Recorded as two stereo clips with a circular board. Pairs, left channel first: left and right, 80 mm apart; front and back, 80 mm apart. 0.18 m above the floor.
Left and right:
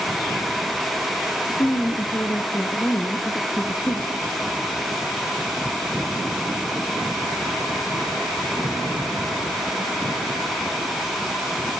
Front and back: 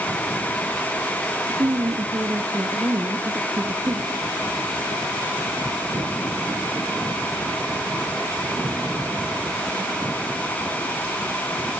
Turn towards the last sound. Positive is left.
turn(degrees=135)